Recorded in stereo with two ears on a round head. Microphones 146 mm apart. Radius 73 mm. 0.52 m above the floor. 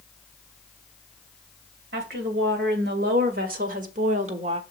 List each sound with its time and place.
1.9 s a woman speaking: 75° right (ahead or behind), 2 m; by 4.6 s 35° right (ahead or behind), 0.9 m